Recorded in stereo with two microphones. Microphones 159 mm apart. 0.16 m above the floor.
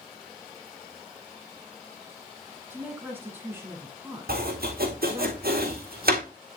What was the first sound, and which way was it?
A woman speaking, 15° right (ahead or behind).